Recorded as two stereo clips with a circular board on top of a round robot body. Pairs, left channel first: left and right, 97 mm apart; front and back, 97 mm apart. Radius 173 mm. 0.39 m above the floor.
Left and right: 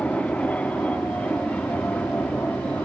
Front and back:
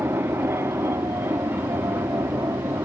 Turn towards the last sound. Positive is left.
turn(degrees=150)